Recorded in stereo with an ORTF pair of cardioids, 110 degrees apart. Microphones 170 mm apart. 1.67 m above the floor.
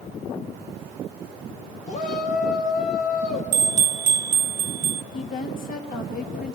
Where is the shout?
45° left, 3.5 m.